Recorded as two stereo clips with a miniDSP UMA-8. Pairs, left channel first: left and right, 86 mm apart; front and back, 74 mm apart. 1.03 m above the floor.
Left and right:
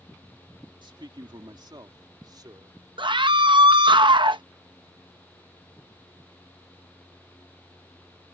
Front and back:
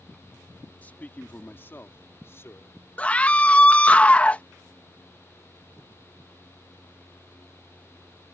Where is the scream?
70° right.